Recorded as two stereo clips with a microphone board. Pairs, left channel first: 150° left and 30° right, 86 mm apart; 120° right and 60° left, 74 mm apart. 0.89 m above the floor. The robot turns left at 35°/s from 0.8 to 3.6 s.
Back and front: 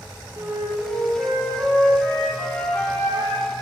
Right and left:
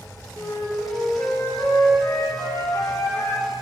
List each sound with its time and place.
0.4 s a flute: 75° right, 1.0 m; by 3.5 s 170° right, 1.0 m